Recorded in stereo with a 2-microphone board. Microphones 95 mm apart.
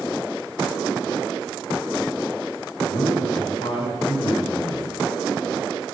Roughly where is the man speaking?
Left.